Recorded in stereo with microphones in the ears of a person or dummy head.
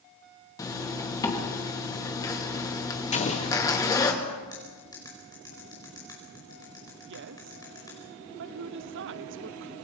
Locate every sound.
0.6 s a zipper: 15° left (ahead or behind), 2.5 m
3.1 s an explosion: 40° left (ahead or behind), 1.7 m
4.5 s cutlery clinking: 25° left (ahead or behind), 5 m
7.1 s a woman speaking: 50° right (ahead or behind), 0.9 m